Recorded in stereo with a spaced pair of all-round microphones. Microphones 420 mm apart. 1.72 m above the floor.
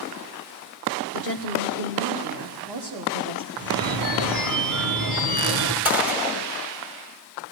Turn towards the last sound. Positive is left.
turn(degrees=-5)  # may be behind; listen again after turning